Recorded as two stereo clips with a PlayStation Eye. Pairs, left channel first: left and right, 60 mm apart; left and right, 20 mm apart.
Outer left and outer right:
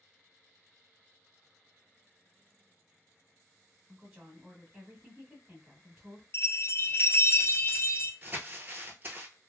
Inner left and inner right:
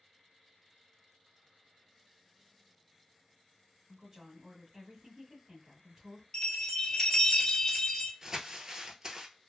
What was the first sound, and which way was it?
A woman speaking, 10° right (ahead or behind).